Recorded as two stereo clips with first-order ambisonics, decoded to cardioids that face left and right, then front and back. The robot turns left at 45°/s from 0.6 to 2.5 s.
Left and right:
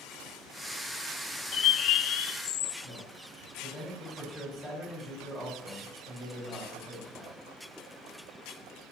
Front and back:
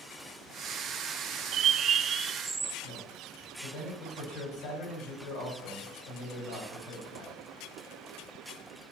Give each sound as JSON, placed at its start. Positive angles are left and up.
{"t": 1.5, "sound": "a bird", "azimuth_deg": 140, "distance_m": 0.6}
{"t": 2.8, "sound": "a man speaking", "azimuth_deg": 20, "distance_m": 5.5}